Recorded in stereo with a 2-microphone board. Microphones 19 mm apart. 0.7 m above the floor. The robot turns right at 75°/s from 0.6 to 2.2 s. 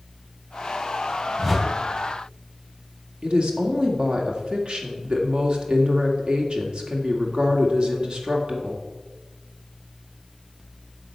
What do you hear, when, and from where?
1.4 s a whoosh: 25° right (ahead or behind), 1.8 m; by 1.7 s centre (ahead or behind), 1.8 m
3.2 s a woman speaking: 60° right (ahead or behind), 1.8 m